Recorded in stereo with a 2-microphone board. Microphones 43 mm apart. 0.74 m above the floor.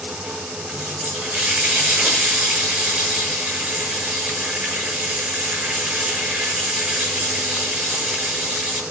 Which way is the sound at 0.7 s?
30° right (ahead or behind).